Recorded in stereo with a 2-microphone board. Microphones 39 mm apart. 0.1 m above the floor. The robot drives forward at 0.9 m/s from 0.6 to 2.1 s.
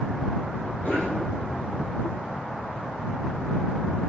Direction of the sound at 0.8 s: 45° left (ahead or behind).